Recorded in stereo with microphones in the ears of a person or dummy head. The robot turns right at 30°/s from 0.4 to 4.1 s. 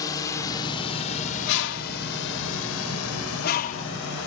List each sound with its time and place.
0.0 s a drone: 20° left (ahead or behind); by 4.3 s 60° left (ahead or behind)
1.5 s a bird: 65° left (ahead or behind); by 3.9 s 35° left (ahead or behind)